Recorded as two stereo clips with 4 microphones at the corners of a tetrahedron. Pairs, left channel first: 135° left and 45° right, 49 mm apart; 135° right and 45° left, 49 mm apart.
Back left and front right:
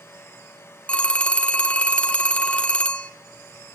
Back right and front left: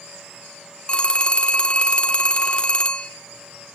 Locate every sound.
0.9 s a phone ringing: straight behind, 0.6 m